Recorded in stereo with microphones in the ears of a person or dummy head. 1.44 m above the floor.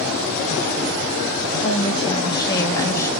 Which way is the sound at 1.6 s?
25° left (ahead or behind).